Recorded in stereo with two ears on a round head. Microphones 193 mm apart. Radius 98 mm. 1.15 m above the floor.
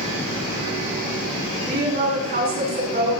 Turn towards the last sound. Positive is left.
turn(degrees=-40)  # may be behind; listen again after turning